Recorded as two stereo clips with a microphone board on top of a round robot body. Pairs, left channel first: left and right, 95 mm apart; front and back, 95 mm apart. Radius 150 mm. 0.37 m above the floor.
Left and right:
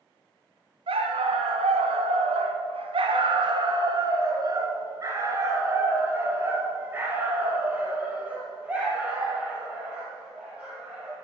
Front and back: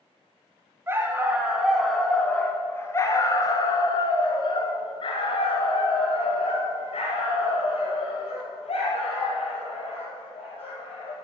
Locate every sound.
0.9 s a dog barking: 115° right, 1.3 m; by 11.1 s 10° right, 4.5 m